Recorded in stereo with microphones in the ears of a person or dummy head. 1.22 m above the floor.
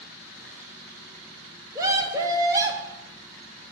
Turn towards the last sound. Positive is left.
turn(degrees=-20)  # may be behind; listen again after turning